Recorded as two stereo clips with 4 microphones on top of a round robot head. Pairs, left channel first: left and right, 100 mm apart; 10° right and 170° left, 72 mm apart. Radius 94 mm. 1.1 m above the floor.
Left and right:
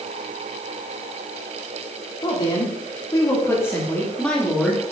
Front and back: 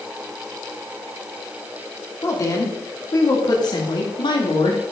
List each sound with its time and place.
2.2 s a woman speaking: 40° left, 3 m; by 4.9 s straight ahead, 2.5 m